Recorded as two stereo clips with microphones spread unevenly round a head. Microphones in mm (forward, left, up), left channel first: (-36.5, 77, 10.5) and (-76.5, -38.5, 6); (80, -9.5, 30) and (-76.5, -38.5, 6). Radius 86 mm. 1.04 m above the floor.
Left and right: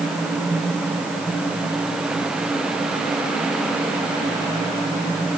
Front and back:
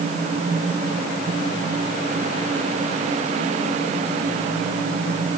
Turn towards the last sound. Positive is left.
No sound to turn to.